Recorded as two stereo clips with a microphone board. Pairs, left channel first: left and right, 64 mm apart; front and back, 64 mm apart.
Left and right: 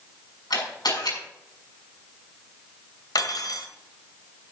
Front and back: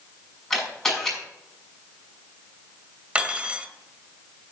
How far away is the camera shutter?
About 6 m.